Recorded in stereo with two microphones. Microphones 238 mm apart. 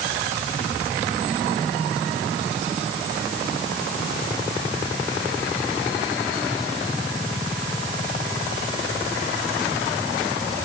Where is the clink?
No clink in this recording.